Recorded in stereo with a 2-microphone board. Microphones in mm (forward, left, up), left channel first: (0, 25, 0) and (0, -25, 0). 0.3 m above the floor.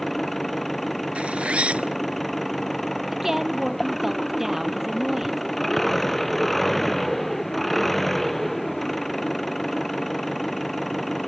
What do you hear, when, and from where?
0.0 s an engine running: 5° left (ahead or behind)
1.1 s a zipper: 25° right (ahead or behind)
3.1 s a woman speaking: 5° right (ahead or behind)